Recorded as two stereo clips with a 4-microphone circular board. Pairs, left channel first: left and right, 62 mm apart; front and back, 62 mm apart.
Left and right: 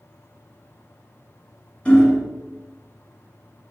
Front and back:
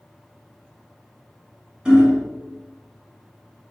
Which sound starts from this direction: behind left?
Hammering, at 1.9 s.